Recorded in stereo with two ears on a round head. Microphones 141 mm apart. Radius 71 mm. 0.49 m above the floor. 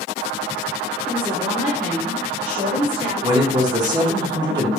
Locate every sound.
1.1 s a woman speaking: centre (ahead or behind), 0.8 m; by 3.1 s 75° right (ahead or behind), 2.5 m
3.2 s a man speaking: 30° right (ahead or behind), 0.8 m